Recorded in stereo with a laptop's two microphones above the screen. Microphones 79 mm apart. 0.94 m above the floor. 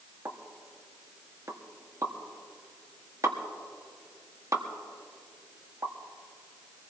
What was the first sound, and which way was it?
A pop, 45° right (ahead or behind).